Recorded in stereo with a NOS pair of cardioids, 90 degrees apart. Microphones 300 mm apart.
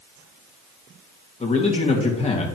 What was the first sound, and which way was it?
A man speaking, 20° left.